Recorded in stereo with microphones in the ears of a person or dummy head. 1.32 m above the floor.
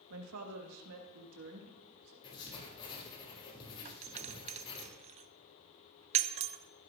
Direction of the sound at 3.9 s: 30° right (ahead or behind).